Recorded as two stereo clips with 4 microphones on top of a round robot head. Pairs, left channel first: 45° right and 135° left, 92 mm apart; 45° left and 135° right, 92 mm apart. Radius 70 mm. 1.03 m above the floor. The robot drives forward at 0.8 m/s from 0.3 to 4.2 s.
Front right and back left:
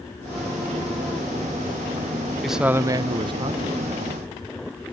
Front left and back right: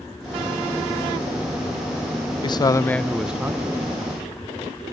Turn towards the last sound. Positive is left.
turn(degrees=165)